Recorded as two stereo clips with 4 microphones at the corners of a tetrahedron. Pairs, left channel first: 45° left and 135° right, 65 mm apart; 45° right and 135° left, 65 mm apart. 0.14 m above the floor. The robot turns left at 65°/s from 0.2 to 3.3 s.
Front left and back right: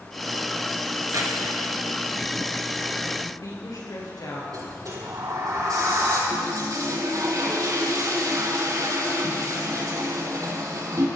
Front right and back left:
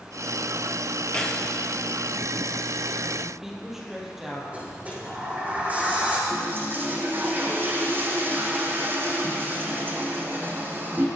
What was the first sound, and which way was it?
Keys jangling, 110° right.